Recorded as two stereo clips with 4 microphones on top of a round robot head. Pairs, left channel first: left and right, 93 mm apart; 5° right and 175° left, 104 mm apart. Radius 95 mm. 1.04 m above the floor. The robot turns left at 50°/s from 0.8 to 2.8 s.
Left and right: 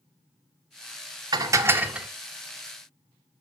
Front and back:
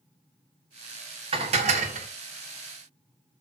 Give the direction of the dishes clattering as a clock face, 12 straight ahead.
5 o'clock.